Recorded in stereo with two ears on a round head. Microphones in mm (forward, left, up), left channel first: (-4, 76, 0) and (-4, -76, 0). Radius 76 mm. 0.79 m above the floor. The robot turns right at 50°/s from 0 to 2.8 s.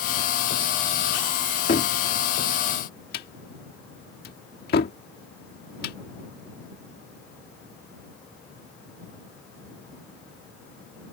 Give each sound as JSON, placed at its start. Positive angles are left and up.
{"t": 1.7, "sound": "a cupboard door", "side_deg": 45}